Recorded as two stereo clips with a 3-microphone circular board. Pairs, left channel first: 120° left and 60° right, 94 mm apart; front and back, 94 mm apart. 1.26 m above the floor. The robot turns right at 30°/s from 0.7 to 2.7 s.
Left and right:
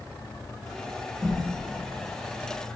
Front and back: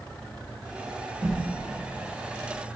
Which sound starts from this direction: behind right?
A whoosh, at 1.2 s.